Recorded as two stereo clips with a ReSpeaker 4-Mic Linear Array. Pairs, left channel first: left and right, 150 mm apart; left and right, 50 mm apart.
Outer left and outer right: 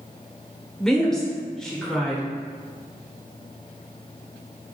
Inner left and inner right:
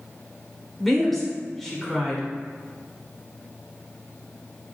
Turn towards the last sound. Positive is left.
turn(degrees=5)  # may be behind; listen again after turning